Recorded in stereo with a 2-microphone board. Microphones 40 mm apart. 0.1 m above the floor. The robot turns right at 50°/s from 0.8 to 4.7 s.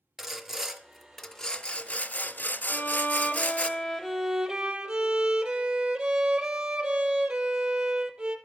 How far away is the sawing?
About 0.5 m.